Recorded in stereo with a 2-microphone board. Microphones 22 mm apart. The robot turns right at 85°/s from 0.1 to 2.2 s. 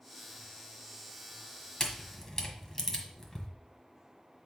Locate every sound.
1.8 s a camera shutter: 25° left (ahead or behind), 1.3 m; by 3.5 s 20° left (ahead or behind), 1.3 m